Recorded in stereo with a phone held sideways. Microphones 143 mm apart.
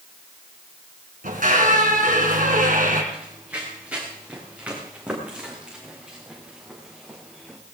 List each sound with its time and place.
1.2 s a squeak: 75° right (ahead or behind), 3 m
3.1 s running footsteps: 10° right (ahead or behind), 6.5 m; by 7.6 s 5° right (ahead or behind), 4 m